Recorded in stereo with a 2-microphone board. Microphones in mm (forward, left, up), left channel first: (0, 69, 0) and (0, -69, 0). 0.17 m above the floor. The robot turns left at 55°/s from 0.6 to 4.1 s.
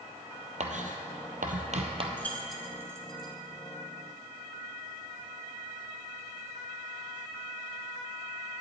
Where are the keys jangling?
15° left (ahead or behind), 1.3 m; by 3.3 s 35° right (ahead or behind), 1.3 m.